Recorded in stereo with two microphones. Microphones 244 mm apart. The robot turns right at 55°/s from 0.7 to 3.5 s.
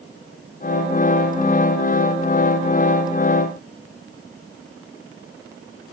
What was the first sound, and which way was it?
Only background noise.